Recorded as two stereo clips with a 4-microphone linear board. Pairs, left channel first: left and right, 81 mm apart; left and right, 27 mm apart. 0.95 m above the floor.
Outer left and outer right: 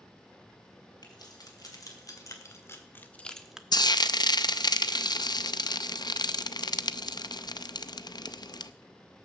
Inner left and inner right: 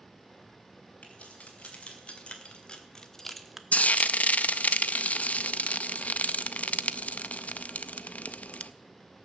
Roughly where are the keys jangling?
Left.